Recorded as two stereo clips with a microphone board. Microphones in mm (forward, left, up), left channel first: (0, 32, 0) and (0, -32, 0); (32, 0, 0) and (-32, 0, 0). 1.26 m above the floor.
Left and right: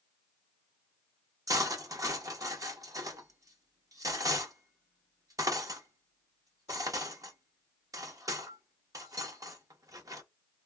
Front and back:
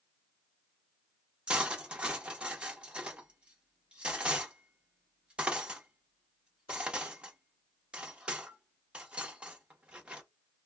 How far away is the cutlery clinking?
About 0.7 m.